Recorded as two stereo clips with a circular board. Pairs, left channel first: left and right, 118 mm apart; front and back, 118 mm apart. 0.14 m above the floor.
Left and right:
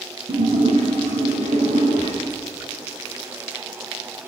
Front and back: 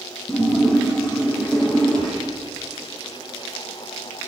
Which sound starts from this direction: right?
A splash, at 0.3 s.